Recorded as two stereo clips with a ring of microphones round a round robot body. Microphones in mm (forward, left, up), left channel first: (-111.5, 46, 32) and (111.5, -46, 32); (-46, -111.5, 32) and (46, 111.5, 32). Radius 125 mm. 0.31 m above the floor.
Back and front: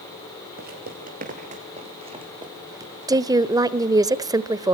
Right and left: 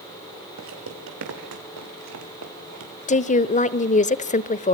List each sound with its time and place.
0.6 s footsteps: 30° left, 6 m; by 3.2 s 60° left, 5 m
3.1 s a woman speaking: 85° right, 0.9 m